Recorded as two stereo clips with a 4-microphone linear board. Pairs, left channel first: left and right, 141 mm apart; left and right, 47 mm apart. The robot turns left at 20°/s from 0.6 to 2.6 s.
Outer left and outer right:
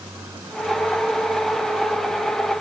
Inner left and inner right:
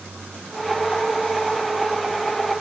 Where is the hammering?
I don't hear hammering.